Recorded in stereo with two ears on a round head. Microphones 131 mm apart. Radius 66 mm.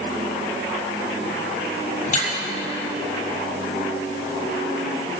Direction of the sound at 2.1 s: 55° left (ahead or behind).